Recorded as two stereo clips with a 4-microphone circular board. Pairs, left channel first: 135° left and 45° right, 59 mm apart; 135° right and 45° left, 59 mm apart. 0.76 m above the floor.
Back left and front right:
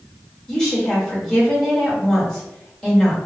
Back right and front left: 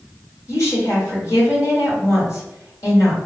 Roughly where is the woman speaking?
Behind right.